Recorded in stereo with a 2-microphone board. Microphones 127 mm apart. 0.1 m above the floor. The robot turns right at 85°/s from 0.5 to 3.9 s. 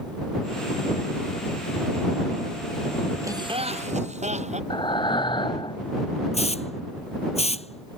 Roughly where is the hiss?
Left.